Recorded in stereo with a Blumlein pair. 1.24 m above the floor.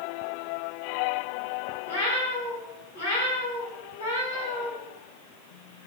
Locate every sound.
1.9 s a cat meowing: 65° left, 4 m